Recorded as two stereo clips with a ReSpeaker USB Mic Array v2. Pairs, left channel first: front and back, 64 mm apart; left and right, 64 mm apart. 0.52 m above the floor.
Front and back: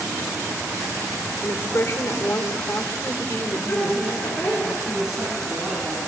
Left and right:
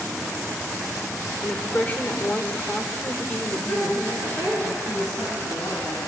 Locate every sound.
1.4 s a woman speaking: 30° left, 1.9 m
3.5 s a woman speaking: 45° left, 5.5 m
4.9 s a man speaking: 95° left, 6 m